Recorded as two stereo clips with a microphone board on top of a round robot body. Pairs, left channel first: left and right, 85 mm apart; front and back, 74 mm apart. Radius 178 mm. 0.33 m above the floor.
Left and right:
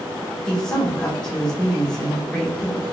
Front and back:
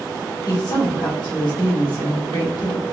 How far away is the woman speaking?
About 2 m.